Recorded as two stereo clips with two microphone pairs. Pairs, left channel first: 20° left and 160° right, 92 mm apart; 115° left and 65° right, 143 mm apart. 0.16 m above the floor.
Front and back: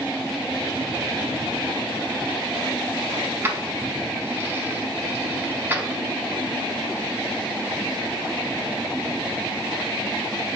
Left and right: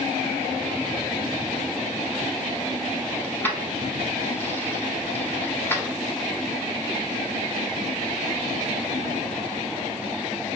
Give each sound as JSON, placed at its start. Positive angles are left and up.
{"t": 3.2, "sound": "keys jangling", "azimuth_deg": 165, "distance_m": 0.8}